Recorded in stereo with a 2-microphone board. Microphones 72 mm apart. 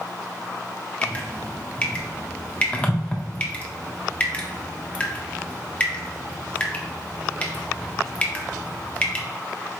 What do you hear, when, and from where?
1.0 s dripping: 20° left (ahead or behind), 0.7 m